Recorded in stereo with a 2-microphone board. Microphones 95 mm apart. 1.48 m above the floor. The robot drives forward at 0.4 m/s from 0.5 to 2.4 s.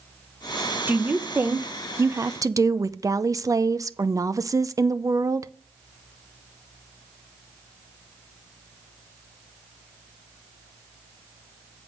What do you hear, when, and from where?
0.9 s a woman speaking: 20° right (ahead or behind), 1.1 m; by 5.5 s 35° right (ahead or behind), 0.6 m